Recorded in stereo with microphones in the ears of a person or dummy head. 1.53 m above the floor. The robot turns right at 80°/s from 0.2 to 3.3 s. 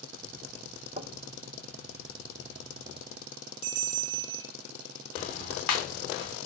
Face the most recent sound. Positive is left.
turn(degrees=50)  # may be behind; listen again after turning